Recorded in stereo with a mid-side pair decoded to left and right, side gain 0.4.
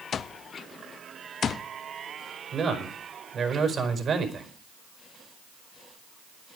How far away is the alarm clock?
About 0.7 m.